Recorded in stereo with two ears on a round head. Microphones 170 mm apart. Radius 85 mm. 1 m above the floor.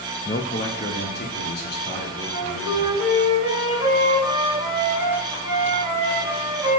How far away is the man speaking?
About 0.5 m.